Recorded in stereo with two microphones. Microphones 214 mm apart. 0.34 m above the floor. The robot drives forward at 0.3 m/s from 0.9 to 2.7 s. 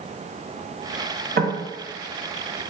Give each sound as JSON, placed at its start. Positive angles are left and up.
{"t": 1.4, "sound": "knocking", "side_deg": -50, "distance_m": 0.8}